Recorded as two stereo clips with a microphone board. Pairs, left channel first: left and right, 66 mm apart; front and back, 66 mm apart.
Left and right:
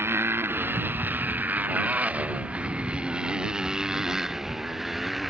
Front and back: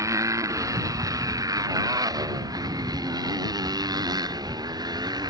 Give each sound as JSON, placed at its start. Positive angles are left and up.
{"t": 0.0, "sound": "a motorcycle", "azimuth_deg": -140}